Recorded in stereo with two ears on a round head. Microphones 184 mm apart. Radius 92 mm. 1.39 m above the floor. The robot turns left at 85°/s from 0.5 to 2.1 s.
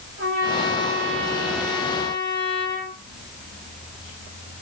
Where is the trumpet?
90° right, 4.5 m; by 3.0 s 135° left, 4.5 m.